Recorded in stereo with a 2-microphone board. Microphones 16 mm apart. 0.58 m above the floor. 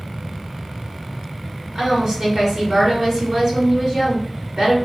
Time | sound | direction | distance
1.8 | a woman speaking | 40° right (ahead or behind) | 1.5 m